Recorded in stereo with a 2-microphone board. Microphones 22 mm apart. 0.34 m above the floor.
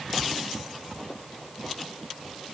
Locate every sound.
Only background noise.